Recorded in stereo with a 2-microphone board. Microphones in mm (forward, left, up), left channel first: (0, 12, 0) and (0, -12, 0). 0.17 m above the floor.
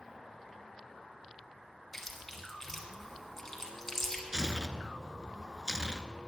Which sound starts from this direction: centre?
Chewing, at 1.9 s.